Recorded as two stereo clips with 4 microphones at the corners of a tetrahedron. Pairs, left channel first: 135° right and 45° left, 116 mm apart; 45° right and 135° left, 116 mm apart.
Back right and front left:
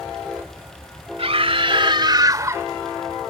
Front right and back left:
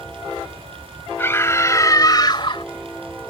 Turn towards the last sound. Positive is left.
turn(degrees=-20)